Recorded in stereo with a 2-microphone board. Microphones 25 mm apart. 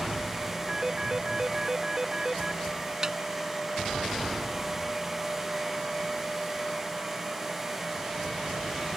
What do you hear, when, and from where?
0.7 s a phone ringing: 25° right (ahead or behind)
3.0 s a snare drum: 20° right (ahead or behind)